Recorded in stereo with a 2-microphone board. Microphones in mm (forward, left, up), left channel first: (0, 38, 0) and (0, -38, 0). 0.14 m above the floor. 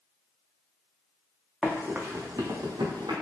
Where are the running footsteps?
5° left (ahead or behind), 0.5 m; by 3.1 s 85° right, 0.8 m.